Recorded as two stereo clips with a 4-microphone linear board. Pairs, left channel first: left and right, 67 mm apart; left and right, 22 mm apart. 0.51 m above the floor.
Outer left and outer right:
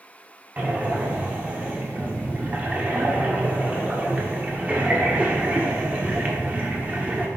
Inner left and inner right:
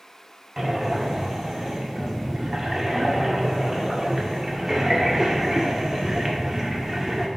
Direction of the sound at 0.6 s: 25° right (ahead or behind).